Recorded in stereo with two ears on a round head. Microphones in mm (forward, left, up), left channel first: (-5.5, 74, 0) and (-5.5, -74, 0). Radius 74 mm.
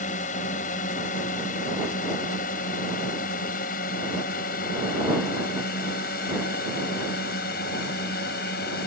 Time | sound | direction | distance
0.0 | a drone | 45° left (ahead or behind) | ?